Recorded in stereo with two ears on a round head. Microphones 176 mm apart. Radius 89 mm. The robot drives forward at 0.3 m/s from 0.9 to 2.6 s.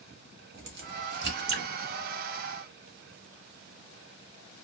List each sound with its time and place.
0.5 s a crack: 50° right (ahead or behind), 1.0 m; by 1.7 s 60° right (ahead or behind), 0.9 m